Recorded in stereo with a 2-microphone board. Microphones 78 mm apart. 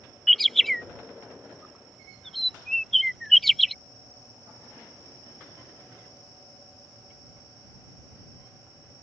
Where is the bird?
Centre (ahead or behind).